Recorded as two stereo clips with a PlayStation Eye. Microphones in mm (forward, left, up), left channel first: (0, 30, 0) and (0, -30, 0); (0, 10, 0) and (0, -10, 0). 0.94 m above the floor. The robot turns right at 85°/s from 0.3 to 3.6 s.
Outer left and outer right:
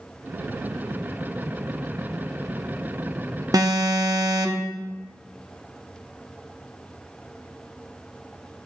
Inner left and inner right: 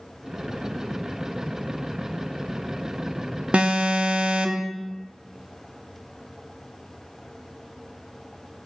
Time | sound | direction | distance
3.5 | an alarm | 75° right (ahead or behind) | 0.8 m